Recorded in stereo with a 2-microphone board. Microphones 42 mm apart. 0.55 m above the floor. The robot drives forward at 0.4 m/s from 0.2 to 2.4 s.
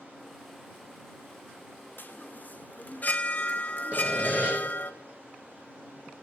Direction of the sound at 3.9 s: 30° right (ahead or behind).